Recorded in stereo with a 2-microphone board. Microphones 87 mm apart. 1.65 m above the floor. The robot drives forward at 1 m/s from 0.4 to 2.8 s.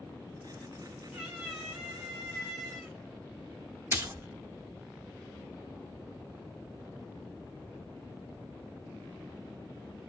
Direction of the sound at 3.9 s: 30° right (ahead or behind).